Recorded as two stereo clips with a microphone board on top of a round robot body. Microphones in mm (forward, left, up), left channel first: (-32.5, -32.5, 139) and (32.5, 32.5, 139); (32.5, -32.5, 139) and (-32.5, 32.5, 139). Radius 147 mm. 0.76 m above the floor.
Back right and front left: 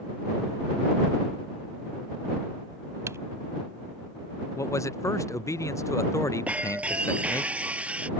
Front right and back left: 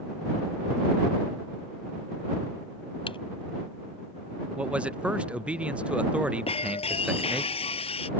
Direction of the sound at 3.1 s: 15° right.